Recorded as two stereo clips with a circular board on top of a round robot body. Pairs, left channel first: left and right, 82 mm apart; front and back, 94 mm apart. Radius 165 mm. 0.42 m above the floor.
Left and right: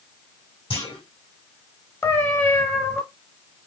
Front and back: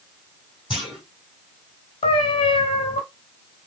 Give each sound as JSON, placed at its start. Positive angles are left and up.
{"t": 0.7, "sound": "a clunk", "azimuth_deg": 95, "distance_m": 4.0}
{"t": 2.0, "sound": "a cat meowing", "azimuth_deg": 30, "distance_m": 0.7}